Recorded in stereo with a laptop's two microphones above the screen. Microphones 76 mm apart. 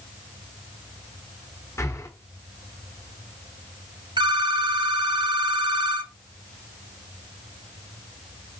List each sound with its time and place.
1.8 s breathing: 40° left (ahead or behind), 1.2 m
4.2 s a phone ringing: 85° right, 1.4 m